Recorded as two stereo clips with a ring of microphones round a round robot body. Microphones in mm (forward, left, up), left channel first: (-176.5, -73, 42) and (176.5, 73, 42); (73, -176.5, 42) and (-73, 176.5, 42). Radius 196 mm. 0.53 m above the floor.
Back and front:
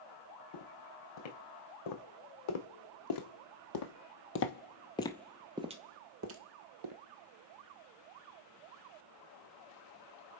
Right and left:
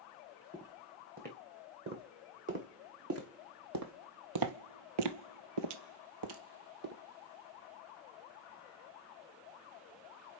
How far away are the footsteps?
About 2.5 m.